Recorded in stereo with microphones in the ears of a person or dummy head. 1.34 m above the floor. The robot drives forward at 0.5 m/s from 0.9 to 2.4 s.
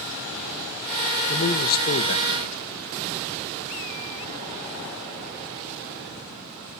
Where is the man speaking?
40° left (ahead or behind), 1.3 m; by 2.6 s 60° left (ahead or behind), 1.0 m.